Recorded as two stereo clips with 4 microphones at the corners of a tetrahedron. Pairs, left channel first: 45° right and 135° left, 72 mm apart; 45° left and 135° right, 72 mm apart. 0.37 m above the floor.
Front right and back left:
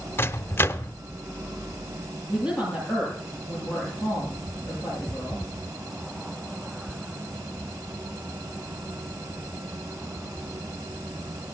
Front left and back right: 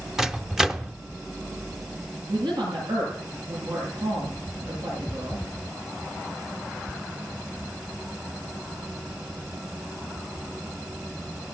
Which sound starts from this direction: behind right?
A woman speaking, at 2.3 s.